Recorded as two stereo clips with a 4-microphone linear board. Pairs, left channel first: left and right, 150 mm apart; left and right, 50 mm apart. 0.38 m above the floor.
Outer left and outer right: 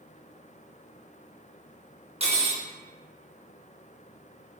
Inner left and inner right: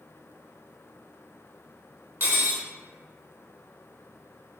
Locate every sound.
2.2 s cutlery clinking: 45° right (ahead or behind), 0.5 m